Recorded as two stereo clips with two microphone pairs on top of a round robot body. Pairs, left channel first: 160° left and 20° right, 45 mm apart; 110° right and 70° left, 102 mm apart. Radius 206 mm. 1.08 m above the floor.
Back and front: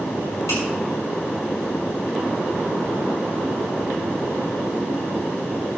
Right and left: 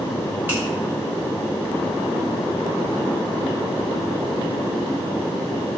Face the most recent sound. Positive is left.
turn(degrees=140)